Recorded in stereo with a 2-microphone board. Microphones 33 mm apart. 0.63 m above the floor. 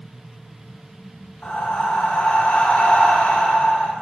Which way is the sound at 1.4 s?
45° left (ahead or behind).